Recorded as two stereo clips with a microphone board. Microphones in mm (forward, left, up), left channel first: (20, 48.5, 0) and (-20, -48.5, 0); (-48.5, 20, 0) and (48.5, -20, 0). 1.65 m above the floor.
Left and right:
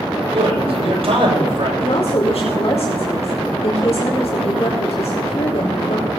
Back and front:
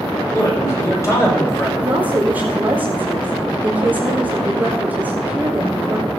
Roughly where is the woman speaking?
Ahead left.